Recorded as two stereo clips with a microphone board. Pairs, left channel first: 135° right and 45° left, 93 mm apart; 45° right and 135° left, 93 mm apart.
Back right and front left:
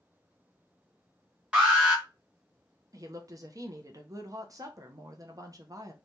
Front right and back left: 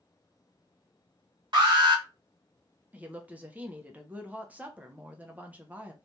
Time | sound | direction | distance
1.5 | an alarm | 120° left | 1.3 m
2.9 | a woman speaking | 70° left | 0.6 m